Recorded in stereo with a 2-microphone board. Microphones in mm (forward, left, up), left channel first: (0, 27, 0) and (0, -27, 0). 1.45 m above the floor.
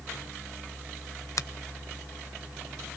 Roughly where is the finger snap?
Left.